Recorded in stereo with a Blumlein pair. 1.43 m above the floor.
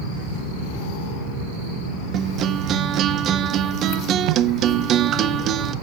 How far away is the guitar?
About 0.6 m.